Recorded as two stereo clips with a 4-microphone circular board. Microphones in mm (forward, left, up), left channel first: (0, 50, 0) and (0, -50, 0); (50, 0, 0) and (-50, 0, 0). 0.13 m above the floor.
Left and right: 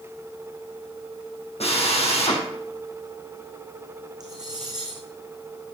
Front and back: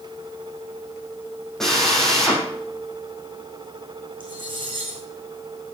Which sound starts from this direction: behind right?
Cutlery clinking, at 4.2 s.